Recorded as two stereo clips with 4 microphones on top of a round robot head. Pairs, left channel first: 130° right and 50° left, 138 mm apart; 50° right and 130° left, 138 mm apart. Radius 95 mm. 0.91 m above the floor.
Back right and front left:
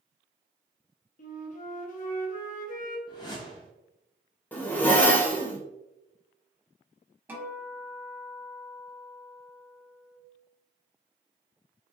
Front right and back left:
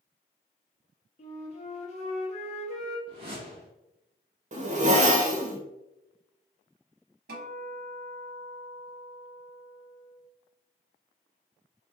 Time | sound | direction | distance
1.2 | a flute | 95° right | 0.6 m
3.1 | a whoosh | 175° left | 0.5 m
4.5 | a zipper | 155° left | 0.9 m
7.3 | a guitar | 125° left | 1.0 m